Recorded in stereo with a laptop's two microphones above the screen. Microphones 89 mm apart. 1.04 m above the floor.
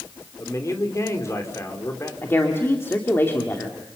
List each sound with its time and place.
0.4 s a man speaking: 35° left (ahead or behind), 3 m
2.2 s a woman speaking: 30° left (ahead or behind), 2 m